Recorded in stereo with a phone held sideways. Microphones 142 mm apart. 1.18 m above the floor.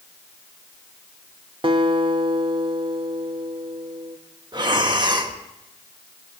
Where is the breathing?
30° right (ahead or behind), 1.0 m.